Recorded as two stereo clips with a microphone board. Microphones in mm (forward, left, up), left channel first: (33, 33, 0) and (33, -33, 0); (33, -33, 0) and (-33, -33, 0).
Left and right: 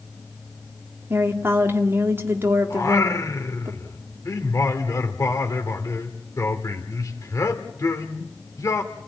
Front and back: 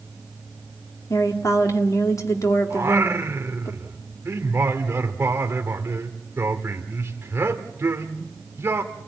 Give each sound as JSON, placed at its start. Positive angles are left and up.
{"t": 1.1, "sound": "a woman speaking", "azimuth_deg": -35, "distance_m": 2.5}
{"t": 2.7, "sound": "singing", "azimuth_deg": 130, "distance_m": 1.6}